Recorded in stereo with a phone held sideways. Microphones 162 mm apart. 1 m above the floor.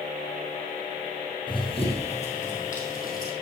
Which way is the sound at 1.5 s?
30° left (ahead or behind).